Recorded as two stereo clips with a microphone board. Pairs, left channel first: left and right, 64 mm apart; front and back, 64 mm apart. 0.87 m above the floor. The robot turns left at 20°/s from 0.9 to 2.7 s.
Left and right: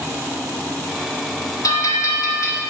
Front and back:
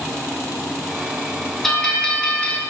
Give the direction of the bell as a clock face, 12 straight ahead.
9 o'clock.